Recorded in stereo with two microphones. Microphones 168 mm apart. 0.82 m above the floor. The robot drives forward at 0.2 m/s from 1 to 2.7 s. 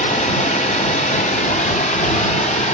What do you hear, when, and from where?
0.0 s running water: 45° left (ahead or behind), 0.9 m